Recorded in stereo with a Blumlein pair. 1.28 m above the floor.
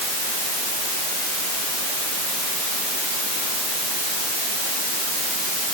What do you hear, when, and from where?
Only background noise.